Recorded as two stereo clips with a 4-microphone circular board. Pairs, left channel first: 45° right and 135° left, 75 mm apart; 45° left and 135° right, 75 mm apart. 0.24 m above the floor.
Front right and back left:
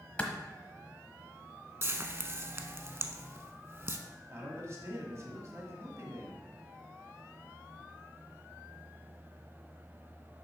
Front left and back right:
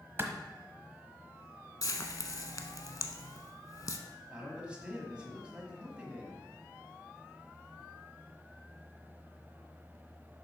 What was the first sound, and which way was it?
A clap, 105° right.